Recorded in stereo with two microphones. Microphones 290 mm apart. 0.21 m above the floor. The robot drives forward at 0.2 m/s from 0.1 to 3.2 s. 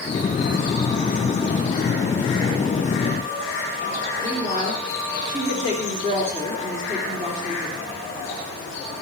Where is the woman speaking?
25° right (ahead or behind), 3.5 m.